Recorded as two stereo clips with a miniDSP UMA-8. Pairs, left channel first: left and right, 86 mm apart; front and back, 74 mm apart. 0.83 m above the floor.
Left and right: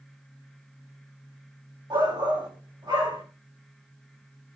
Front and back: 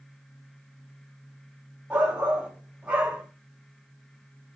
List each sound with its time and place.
1.9 s a shout: 110° right, 3.5 m